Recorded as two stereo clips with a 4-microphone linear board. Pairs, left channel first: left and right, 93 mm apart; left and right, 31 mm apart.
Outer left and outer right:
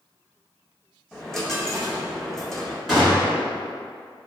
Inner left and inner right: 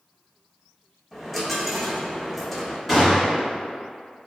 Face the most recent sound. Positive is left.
turn(degrees=0)  # may be behind; listen again after turning